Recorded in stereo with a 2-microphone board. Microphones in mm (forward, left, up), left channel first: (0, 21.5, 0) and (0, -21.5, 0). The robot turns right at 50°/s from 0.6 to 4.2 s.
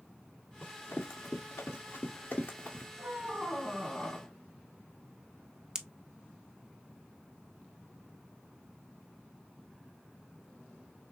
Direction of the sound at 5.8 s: 15° right (ahead or behind).